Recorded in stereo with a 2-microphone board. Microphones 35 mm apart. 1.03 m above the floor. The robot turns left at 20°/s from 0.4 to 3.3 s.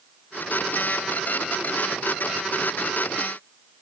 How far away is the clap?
I don't hear a clap.